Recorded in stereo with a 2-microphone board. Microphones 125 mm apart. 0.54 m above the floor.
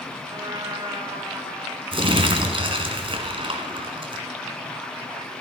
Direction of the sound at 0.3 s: 35° right (ahead or behind).